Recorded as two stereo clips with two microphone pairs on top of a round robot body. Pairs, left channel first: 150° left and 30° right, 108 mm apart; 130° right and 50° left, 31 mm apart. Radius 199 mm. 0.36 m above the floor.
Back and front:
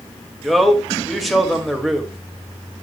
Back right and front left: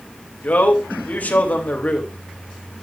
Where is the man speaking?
120° right, 3 m.